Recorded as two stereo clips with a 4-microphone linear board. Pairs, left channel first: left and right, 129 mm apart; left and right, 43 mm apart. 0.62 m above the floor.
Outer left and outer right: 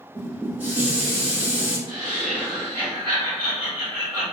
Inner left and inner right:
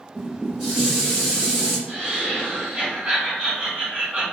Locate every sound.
0.1 s dishes clattering: 15° right (ahead or behind), 1.7 m
1.9 s laughter: 40° right (ahead or behind), 1.4 m